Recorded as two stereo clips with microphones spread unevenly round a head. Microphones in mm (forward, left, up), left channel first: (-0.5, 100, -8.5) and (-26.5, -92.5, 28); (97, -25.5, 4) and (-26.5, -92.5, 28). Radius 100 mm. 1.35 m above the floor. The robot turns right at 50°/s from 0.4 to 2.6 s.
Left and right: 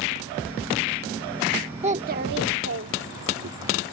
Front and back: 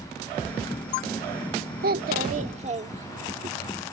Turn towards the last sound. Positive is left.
turn(degrees=-115)